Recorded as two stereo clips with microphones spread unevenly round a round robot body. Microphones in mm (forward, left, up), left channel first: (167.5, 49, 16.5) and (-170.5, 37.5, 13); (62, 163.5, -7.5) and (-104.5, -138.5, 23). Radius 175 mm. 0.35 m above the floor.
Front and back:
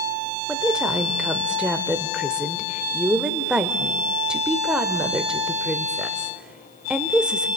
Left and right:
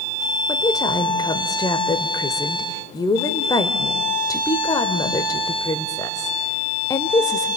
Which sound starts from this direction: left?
A woman speaking, at 0.5 s.